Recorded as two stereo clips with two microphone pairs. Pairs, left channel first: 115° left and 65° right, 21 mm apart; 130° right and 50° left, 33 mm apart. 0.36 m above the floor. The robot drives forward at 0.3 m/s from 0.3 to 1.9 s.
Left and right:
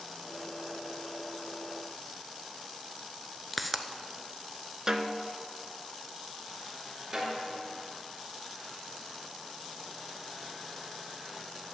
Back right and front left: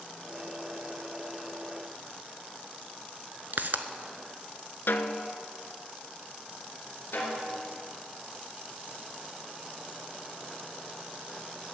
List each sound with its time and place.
3.5 s a pop: 30° left, 0.7 m
4.9 s a snare drum: 130° right, 0.7 m
7.1 s a snare drum: 140° right, 3 m